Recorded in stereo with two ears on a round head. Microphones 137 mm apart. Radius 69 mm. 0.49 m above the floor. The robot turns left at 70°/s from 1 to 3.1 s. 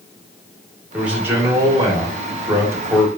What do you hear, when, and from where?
0.9 s a man speaking: 5° right (ahead or behind), 0.9 m; by 3.1 s 10° right (ahead or behind), 0.9 m